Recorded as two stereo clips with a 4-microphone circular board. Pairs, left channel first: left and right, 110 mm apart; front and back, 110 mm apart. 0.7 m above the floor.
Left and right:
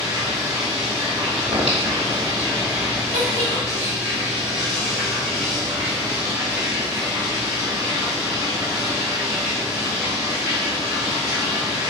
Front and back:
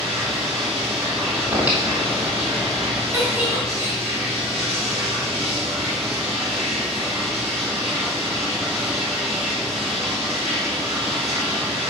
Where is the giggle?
110° right, 3 m.